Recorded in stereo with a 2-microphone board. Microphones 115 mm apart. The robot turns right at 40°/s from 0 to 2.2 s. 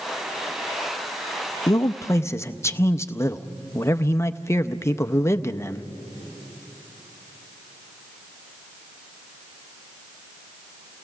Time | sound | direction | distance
1.7 | a man speaking | 35° left (ahead or behind) | 0.5 m